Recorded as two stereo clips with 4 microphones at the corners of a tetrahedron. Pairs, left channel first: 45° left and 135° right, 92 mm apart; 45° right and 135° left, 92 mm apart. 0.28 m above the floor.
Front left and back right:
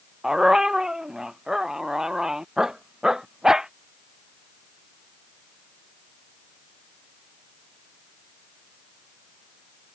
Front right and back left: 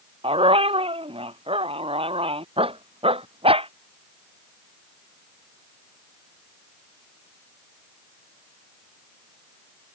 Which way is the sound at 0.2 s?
140° left.